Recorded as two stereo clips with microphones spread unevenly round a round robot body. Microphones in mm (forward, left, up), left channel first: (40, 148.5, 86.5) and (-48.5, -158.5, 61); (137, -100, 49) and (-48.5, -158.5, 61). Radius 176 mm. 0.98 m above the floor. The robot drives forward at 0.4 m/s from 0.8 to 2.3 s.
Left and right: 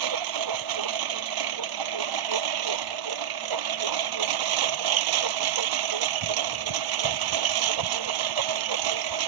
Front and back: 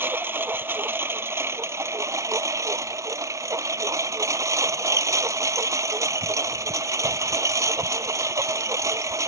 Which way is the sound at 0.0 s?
85° right.